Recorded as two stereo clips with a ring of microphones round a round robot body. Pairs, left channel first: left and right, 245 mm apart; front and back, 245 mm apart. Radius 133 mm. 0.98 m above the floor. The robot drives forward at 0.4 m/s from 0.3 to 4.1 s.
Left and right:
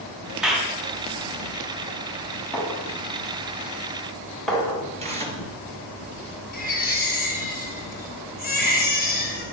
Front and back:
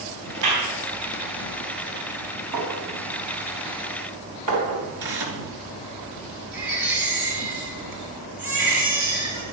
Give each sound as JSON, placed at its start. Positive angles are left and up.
{"t": 0.4, "sound": "a clap", "azimuth_deg": -175, "distance_m": 5.0}
{"t": 2.5, "sound": "a clink", "azimuth_deg": 180, "distance_m": 4.0}
{"t": 5.0, "sound": "tearing paper", "azimuth_deg": -155, "distance_m": 3.5}
{"t": 6.5, "sound": "a baby crying", "azimuth_deg": 145, "distance_m": 5.0}